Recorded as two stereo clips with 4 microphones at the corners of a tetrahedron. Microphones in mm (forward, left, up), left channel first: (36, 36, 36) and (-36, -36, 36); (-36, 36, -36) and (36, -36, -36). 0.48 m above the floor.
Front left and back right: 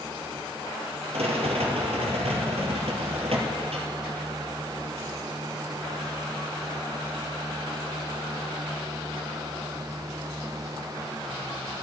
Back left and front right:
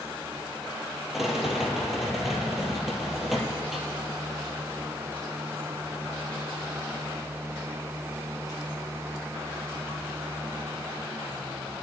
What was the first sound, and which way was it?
A rattle, 135° right.